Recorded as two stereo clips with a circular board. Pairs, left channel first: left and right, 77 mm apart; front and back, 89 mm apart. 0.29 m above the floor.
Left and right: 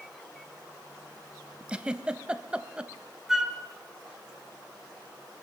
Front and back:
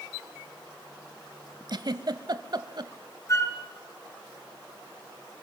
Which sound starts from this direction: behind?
A giggle, at 1.7 s.